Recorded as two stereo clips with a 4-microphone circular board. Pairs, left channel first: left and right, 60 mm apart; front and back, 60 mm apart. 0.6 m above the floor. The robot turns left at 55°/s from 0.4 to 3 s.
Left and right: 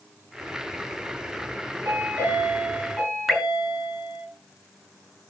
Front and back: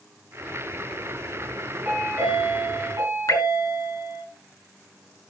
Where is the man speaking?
No man speaking in this recording.